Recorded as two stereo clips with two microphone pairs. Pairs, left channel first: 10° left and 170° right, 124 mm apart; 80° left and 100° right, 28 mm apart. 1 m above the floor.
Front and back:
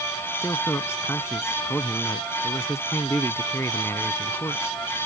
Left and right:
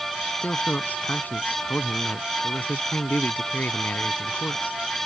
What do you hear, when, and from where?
0.4 s a man speaking: 80° left